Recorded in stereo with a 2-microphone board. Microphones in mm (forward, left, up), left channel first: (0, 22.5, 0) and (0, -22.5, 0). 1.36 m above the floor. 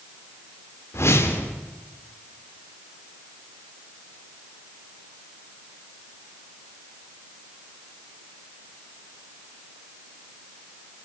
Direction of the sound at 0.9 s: 70° left (ahead or behind).